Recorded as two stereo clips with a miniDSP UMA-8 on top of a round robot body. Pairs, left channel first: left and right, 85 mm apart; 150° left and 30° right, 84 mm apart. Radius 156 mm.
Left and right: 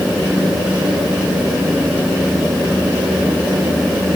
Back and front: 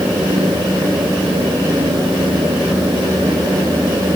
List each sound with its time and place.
Only background noise.